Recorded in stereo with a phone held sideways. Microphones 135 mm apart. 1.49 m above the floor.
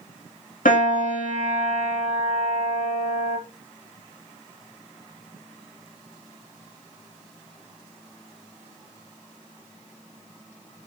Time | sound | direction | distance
0.7 | a piano | 85° left | 3 m